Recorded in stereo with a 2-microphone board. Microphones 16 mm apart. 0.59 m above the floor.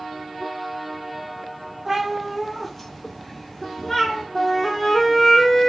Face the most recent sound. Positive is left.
turn(degrees=30)  # may be behind; listen again after turning